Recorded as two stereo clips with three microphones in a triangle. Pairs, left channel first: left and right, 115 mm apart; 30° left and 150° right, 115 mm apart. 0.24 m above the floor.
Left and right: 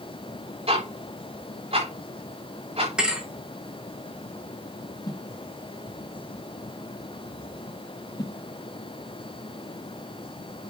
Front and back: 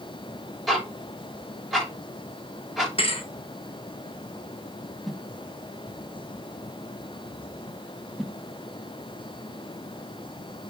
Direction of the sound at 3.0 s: 10° right.